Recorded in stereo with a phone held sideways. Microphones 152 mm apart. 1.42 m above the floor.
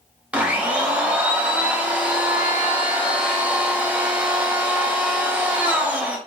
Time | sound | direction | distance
0.3 | a blender | 10° right (ahead or behind) | 0.8 m